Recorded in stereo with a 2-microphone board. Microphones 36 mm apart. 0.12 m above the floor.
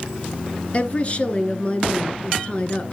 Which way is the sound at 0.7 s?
35° left (ahead or behind).